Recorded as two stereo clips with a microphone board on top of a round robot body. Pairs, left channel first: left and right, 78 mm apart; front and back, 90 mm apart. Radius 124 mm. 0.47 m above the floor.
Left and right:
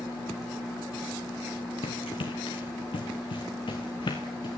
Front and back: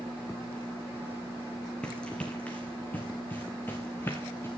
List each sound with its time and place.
1.8 s running footsteps: 80° left, 2.5 m; by 4.5 s 65° left, 4 m